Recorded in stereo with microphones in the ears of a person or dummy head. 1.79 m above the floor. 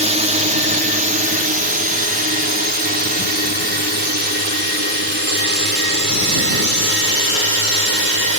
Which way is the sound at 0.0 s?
35° right (ahead or behind).